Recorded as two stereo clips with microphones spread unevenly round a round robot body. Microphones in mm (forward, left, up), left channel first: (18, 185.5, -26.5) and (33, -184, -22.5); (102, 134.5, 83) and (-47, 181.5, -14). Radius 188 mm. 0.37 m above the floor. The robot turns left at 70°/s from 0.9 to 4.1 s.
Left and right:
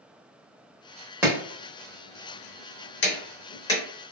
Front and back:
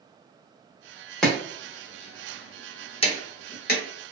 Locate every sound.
1.2 s chopping: 165° right, 0.8 m; by 3.8 s 10° left, 0.8 m